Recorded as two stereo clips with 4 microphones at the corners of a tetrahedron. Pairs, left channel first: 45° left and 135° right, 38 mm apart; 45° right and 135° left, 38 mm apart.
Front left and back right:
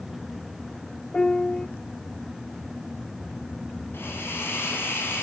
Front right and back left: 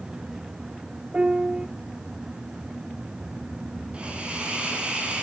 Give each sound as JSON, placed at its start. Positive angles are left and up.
{"t": 1.1, "sound": "a piano", "azimuth_deg": 105, "distance_m": 0.6}
{"t": 3.9, "sound": "a hiss", "azimuth_deg": 70, "distance_m": 8.0}